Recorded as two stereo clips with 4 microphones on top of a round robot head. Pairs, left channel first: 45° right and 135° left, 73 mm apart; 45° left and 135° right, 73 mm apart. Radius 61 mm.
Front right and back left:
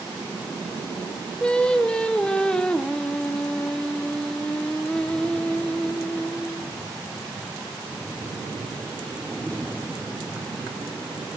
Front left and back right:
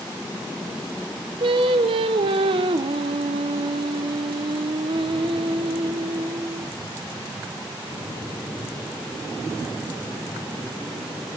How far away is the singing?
About 1.2 m.